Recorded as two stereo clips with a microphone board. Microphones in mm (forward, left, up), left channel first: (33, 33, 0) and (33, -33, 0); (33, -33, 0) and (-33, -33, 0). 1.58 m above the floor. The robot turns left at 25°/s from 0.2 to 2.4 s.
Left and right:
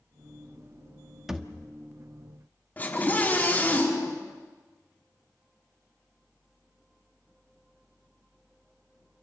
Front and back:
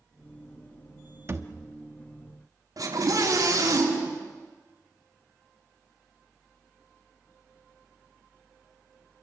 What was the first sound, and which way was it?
A thud, 170° right.